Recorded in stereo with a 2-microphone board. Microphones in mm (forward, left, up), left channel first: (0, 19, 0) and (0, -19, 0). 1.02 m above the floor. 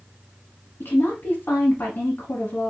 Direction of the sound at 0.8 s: 60° left (ahead or behind).